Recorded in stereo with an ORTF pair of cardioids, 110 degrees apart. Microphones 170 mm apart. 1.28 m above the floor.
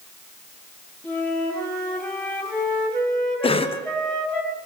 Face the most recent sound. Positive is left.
turn(degrees=30)